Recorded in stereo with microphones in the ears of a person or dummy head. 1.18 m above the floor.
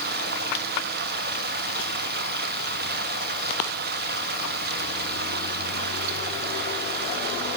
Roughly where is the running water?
Right.